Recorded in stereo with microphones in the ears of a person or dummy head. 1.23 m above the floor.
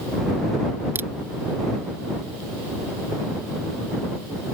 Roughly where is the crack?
Centre.